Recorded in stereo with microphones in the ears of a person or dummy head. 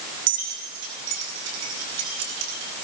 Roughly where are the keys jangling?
Right.